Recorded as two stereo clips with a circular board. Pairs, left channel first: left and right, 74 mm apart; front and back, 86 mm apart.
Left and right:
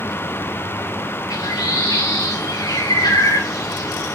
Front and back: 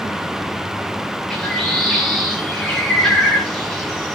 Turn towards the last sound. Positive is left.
turn(degrees=80)